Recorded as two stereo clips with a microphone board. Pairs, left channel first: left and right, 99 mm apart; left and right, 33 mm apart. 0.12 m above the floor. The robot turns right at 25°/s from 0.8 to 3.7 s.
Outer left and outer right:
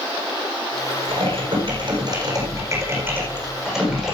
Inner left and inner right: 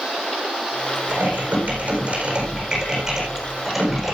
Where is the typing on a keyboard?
70° right, 9 m; by 4.1 s 5° right, 9 m.